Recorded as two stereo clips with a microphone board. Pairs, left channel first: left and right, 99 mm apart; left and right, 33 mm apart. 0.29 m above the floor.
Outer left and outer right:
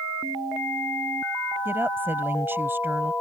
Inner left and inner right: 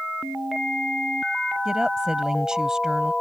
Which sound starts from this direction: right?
A woman speaking, at 1.6 s.